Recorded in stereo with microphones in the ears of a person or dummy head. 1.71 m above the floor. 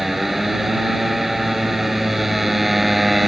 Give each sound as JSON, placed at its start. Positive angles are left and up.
{"t": 0.0, "sound": "a motorcycle", "side_deg": 0}